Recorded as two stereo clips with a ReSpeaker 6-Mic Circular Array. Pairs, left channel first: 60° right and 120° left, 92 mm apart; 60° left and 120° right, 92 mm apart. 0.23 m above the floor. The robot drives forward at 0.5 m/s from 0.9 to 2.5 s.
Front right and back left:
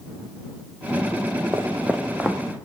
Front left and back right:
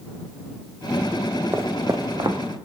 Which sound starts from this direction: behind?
Footsteps, at 1.5 s.